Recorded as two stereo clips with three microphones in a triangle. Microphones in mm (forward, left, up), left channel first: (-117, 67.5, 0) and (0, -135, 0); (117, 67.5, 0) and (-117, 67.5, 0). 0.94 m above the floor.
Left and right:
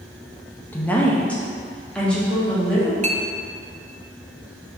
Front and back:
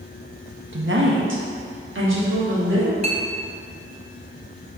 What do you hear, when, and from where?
0.7 s a woman speaking: 160° right, 0.7 m; by 2.9 s 155° right, 1.9 m
3.0 s a clink: 120° right, 0.5 m